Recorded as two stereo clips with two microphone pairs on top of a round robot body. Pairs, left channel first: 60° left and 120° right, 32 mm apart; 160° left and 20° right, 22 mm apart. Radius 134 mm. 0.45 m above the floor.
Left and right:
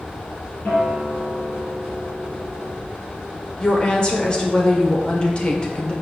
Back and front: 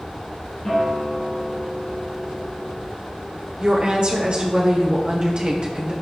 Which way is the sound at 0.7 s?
95° left.